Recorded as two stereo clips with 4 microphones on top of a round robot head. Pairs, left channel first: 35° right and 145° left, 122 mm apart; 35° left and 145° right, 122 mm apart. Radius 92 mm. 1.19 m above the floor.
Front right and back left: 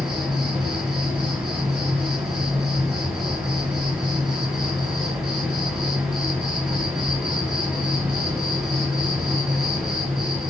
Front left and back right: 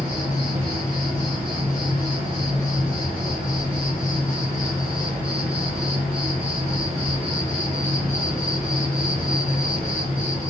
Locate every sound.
0.0 s an insect: 165° right, 1.4 m